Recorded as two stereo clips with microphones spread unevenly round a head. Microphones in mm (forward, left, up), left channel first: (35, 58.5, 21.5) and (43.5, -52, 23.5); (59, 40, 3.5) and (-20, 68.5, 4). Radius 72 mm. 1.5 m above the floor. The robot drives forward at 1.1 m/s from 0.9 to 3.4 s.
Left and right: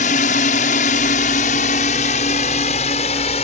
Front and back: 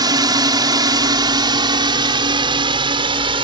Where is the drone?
125° left; by 3.5 s 140° left.